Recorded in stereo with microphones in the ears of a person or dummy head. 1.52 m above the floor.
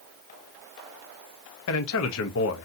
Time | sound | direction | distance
1.7 | a man speaking | 75° left (ahead or behind) | 0.7 m